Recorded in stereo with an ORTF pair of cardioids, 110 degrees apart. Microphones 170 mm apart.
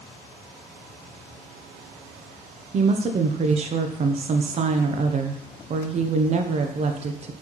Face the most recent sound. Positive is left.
turn(degrees=-40)